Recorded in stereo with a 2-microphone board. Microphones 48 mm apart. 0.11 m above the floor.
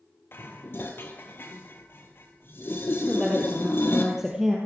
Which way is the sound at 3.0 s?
10° right (ahead or behind).